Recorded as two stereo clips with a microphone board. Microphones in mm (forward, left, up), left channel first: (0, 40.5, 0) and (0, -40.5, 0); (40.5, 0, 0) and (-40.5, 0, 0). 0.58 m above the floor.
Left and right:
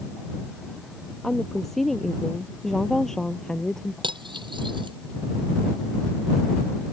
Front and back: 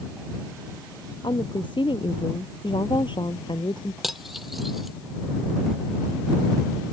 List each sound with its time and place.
1.2 s a woman speaking: straight ahead; by 3.9 s 5° left
4.0 s cutlery clinking: 90° right